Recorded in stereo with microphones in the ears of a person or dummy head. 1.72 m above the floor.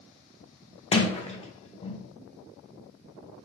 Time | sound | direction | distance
0.9 | a sliding door | 25° left (ahead or behind) | 0.5 m